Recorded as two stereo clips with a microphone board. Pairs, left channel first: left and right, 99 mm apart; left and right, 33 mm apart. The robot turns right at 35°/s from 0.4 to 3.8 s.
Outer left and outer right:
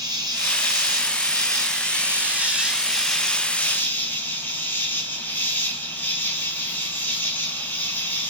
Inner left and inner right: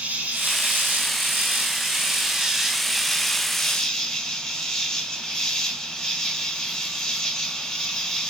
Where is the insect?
95° right, 1.0 m; by 8.3 s 25° left, 1.0 m.